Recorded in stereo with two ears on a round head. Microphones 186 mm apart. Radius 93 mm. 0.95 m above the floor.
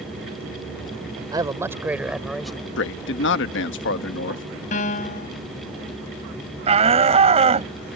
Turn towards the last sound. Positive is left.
turn(degrees=-30)  # may be behind; listen again after turning